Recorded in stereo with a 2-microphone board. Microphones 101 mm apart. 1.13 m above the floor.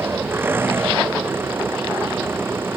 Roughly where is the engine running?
Right.